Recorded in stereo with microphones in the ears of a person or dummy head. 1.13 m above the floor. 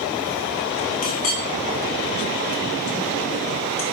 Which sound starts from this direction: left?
A clink, at 1.0 s.